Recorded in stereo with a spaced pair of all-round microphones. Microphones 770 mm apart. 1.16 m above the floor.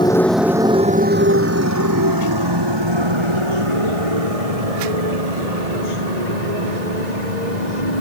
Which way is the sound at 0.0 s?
5° left (ahead or behind).